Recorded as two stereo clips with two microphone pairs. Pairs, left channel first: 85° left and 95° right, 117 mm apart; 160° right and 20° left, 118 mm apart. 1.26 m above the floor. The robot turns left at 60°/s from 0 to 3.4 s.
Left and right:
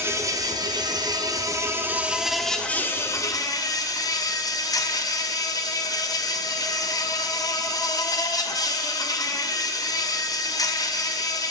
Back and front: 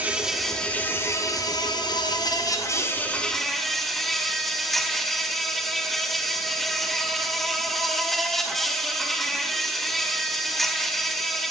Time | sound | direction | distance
0.0 | an insect | 45° right | 0.8 m